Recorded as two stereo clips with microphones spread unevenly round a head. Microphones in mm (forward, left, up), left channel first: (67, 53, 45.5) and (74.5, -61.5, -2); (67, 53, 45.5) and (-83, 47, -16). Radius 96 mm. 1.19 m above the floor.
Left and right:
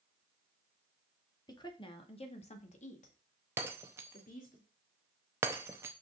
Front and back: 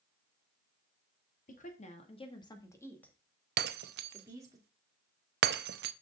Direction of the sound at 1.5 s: 40° left.